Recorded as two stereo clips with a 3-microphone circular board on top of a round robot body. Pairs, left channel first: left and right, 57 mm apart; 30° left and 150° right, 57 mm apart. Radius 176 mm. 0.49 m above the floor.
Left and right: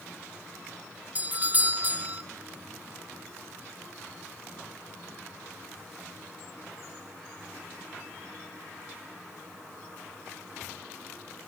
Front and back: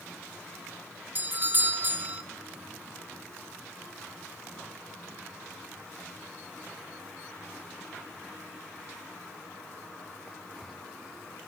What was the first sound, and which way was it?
A doorbell, 130° right.